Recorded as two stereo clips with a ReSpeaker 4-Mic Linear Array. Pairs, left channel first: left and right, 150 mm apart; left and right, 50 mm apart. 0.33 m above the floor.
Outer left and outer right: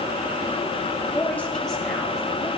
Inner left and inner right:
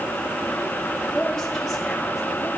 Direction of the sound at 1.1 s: 15° left (ahead or behind).